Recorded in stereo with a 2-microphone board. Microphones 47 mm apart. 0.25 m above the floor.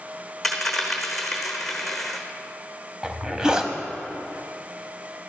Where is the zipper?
15° right (ahead or behind), 0.7 m.